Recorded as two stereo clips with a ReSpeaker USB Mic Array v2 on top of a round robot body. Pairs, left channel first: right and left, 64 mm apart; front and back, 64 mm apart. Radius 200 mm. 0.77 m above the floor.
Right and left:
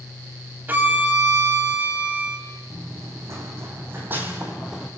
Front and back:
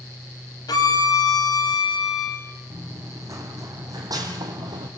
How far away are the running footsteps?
About 2.5 m.